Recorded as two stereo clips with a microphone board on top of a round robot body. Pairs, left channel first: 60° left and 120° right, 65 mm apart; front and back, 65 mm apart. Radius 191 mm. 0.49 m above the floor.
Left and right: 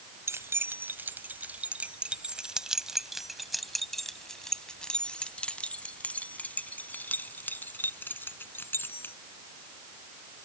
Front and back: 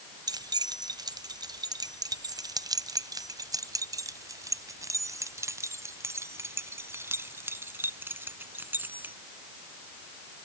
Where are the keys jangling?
170° right; by 9.1 s 120° left.